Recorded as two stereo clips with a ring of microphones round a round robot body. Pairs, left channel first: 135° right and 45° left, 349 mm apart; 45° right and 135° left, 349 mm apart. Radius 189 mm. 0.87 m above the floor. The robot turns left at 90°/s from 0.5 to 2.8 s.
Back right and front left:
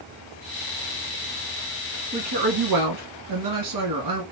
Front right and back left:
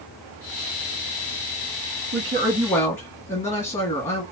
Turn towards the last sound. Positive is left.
turn(degrees=25)